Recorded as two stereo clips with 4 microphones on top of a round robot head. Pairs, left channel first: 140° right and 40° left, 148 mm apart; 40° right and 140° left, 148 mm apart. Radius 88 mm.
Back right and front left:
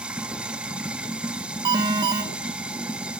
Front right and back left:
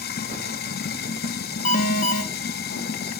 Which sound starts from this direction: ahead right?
Running water, at 0.0 s.